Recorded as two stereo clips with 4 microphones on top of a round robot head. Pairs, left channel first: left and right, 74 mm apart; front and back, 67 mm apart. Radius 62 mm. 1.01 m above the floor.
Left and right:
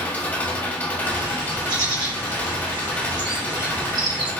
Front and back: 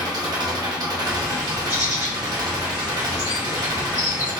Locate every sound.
0.0 s an engine running: 155° left, 1.0 m
1.0 s a bird: 120° right, 1.2 m